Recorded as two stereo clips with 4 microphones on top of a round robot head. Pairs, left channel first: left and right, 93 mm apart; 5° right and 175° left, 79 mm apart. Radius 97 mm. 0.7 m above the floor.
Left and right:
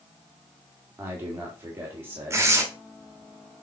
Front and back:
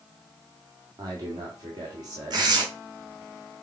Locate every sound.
1.0 s a man speaking: 155° right, 2 m
2.3 s tearing paper: 150° right, 1.8 m